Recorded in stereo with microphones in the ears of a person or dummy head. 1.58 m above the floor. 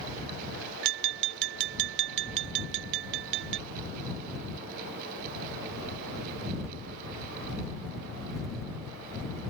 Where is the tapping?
65° right (ahead or behind).